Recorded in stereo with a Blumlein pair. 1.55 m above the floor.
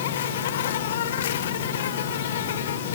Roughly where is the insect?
Ahead left.